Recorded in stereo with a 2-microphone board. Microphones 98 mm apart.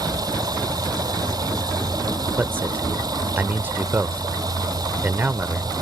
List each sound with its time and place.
0.0 s running water: 40° right (ahead or behind)
2.4 s a man speaking: 20° right (ahead or behind)